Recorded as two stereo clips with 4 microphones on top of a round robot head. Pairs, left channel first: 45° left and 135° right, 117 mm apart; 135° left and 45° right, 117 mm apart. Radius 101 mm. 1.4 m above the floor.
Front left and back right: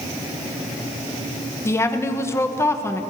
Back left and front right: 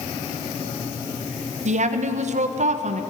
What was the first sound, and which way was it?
A woman speaking, 25° right.